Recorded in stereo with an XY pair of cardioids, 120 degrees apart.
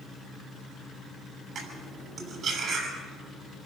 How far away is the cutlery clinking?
About 6.5 m.